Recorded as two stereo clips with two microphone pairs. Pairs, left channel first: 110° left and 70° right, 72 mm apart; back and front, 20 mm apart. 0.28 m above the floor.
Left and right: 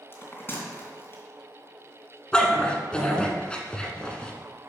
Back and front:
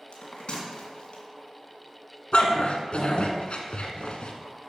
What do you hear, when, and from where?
0.1 s a bell: 165° left, 2.5 m
2.3 s a dog barking: 170° right, 1.3 m